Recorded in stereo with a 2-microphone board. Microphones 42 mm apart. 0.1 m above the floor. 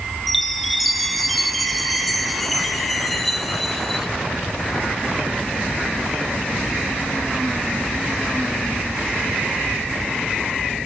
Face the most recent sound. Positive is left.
turn(degrees=0)  # may be behind; listen again after turning